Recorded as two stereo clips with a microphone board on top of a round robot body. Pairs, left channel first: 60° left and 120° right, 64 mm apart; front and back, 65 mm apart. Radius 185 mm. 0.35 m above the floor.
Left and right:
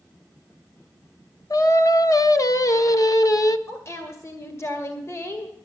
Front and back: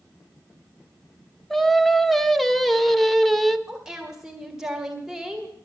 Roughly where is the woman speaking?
Left.